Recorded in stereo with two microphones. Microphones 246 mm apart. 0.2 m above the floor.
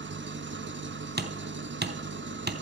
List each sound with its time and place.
0.0 s an engine running: 50° right (ahead or behind), 0.8 m
1.2 s hammering: 40° right (ahead or behind), 1.0 m